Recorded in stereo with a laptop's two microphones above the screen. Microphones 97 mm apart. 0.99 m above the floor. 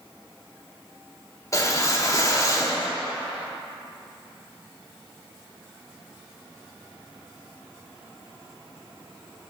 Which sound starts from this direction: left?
A whoosh, at 1.5 s.